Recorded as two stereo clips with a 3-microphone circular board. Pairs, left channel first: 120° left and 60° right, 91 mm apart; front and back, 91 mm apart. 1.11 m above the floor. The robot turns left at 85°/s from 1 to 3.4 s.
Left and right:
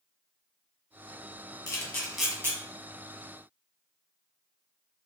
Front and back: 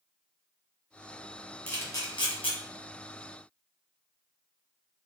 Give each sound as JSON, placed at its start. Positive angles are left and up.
{"t": 1.7, "sound": "a camera shutter", "azimuth_deg": 75, "distance_m": 0.9}